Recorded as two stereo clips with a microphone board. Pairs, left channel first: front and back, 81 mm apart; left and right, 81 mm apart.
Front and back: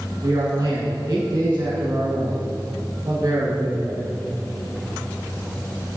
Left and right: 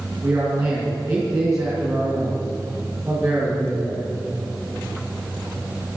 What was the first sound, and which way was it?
A man speaking, 135° right.